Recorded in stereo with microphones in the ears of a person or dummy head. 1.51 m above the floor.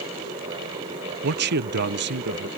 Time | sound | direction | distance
1.2 | a man speaking | 55° right (ahead or behind) | ?